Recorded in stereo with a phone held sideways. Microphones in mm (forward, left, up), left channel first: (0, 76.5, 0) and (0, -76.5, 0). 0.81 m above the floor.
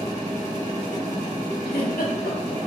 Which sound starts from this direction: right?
A machine running, at 0.0 s.